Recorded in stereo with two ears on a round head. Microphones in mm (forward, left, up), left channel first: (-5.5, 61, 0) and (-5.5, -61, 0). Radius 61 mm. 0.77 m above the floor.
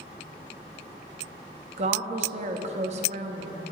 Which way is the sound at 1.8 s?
50° right (ahead or behind).